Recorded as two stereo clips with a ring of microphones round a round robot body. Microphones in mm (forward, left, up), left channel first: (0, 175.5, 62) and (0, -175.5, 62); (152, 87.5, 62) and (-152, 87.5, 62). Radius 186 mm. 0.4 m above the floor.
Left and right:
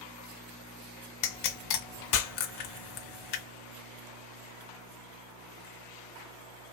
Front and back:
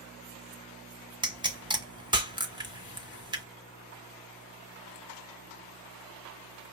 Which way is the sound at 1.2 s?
105° left.